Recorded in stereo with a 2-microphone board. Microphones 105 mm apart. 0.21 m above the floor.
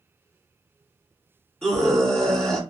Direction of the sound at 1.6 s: 5° left (ahead or behind).